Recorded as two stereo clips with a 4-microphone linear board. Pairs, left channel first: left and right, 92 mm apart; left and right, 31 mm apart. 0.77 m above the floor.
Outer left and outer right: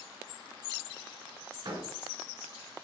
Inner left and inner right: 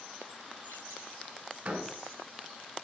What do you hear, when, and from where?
1.6 s a door slam: 55° right (ahead or behind), 6 m